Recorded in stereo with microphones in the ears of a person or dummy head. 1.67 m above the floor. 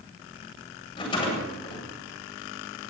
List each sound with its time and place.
0.9 s a rattle: 30° left (ahead or behind), 8.5 m